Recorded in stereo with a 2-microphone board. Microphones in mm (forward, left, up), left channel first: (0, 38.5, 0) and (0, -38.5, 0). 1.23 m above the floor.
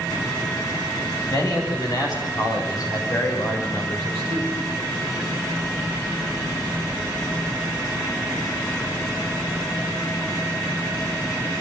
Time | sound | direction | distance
1.3 | a man speaking | 55° left (ahead or behind) | 7 m